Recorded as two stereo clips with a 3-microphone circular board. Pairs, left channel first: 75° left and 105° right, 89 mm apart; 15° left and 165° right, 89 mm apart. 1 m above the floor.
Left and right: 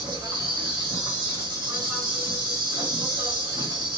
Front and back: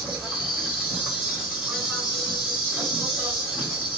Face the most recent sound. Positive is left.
turn(degrees=-80)